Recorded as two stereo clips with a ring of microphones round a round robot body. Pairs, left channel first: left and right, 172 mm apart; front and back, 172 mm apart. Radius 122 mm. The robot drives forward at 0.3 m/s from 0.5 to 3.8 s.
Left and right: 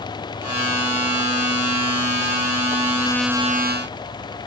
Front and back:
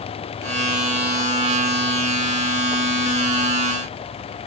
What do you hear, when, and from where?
Only background noise.